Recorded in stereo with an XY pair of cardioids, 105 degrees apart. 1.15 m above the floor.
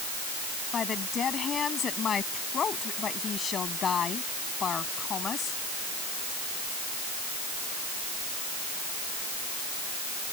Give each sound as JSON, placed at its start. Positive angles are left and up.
{"t": 0.7, "sound": "a woman speaking", "azimuth_deg": 45}